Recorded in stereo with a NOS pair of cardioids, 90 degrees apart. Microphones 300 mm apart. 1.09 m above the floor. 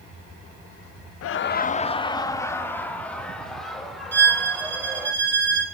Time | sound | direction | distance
1.2 | laughter | 55° left | 0.5 m
4.1 | a violin | 35° right | 1.9 m